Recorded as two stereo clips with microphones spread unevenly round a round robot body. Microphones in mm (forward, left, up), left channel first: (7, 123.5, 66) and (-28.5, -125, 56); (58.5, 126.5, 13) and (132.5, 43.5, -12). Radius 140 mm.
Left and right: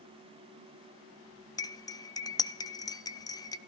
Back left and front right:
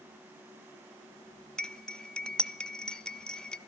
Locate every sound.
1.6 s cutlery clinking: 25° left, 0.5 m